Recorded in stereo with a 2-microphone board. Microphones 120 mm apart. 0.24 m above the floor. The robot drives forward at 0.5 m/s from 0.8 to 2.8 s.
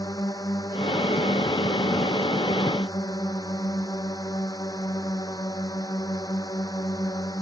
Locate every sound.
0.0 s a drone: 30° left (ahead or behind)